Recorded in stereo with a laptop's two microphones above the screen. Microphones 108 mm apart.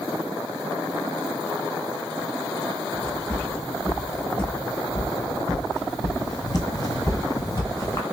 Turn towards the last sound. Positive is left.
turn(degrees=30)  # may be behind; listen again after turning